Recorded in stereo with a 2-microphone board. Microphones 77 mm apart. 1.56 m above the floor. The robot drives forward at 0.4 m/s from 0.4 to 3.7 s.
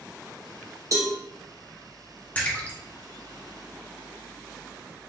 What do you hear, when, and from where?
0.9 s a cowbell: 45° right (ahead or behind), 0.8 m
2.4 s a splash: 20° left (ahead or behind), 1.0 m; by 2.8 s 25° left (ahead or behind), 0.9 m